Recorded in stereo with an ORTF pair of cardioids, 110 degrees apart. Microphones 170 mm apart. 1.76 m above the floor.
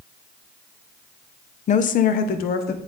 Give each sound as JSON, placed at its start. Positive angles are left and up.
{"t": 1.7, "sound": "a woman speaking", "azimuth_deg": 45, "distance_m": 0.7}